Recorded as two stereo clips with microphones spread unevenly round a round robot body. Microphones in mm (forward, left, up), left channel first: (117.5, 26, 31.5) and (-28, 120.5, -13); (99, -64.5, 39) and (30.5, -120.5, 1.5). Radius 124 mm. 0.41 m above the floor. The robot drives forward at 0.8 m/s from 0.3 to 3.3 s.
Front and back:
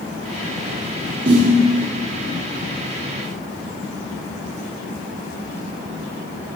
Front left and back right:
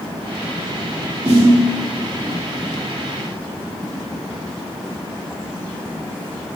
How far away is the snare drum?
About 3 m.